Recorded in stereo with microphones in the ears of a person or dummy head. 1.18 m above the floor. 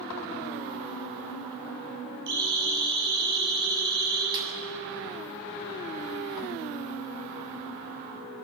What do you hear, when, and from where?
2.3 s a siren: 60° right (ahead or behind), 7.5 m
4.3 s a snare drum: 25° right (ahead or behind), 7 m